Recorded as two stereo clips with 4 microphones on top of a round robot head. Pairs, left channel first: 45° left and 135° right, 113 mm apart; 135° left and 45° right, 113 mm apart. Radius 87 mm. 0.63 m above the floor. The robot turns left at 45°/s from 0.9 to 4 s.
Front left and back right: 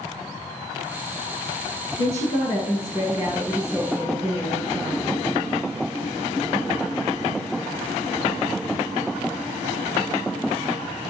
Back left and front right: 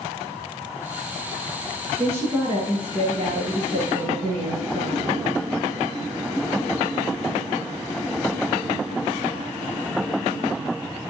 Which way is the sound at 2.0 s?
30° left.